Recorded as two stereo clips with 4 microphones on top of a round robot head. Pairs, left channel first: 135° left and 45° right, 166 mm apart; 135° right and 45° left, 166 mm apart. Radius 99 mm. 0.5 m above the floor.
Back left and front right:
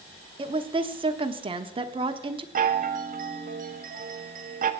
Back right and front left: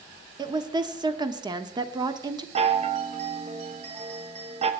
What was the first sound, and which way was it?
A woman speaking, 5° right.